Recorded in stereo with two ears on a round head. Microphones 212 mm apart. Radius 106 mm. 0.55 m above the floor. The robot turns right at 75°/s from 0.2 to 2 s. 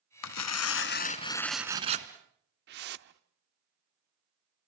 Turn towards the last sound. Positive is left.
turn(degrees=-45)  # may be behind; listen again after turning